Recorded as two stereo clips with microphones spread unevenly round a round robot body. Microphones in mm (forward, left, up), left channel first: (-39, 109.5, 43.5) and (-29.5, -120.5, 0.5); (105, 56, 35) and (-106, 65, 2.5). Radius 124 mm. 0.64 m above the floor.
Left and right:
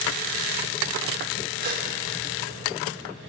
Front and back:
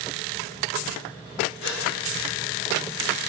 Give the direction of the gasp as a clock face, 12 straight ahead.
1 o'clock.